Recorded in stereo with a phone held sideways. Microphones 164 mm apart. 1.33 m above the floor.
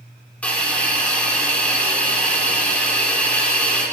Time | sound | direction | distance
0.4 | a hiss | 10° left (ahead or behind) | 2.5 m